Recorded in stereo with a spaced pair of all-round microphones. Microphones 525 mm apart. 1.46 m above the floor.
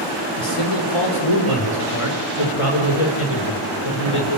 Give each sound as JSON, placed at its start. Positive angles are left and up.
{"t": 0.4, "sound": "a man speaking", "side_deg": 90, "distance_m": 5.0}